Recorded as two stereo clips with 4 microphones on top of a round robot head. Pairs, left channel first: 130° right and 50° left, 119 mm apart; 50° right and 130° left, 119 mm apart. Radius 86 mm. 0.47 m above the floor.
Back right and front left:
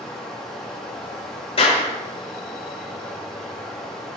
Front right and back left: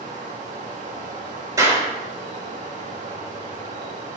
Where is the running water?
145° left, 3.5 m.